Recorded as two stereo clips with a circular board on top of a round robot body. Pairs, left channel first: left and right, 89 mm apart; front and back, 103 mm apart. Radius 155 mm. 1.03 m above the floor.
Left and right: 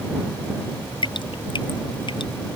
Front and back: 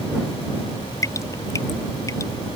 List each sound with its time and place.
1.0 s dripping: 60° left